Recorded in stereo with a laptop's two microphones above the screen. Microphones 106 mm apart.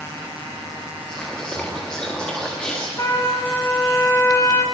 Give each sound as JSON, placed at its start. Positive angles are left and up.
{"t": 1.1, "sound": "whispering", "side_deg": 10, "distance_m": 2.0}
{"t": 3.0, "sound": "a trumpet", "side_deg": 35, "distance_m": 1.9}